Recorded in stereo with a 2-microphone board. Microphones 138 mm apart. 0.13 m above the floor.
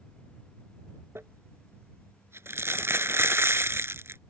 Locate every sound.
1.1 s crumpling: 20° right (ahead or behind)